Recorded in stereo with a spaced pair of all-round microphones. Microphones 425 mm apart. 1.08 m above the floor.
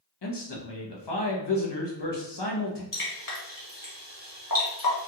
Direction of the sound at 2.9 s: 50° left (ahead or behind).